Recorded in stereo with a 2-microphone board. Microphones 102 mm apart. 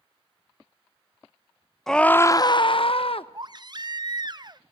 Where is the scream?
5° left (ahead or behind), 0.6 m; by 3.2 s 65° left (ahead or behind), 0.8 m.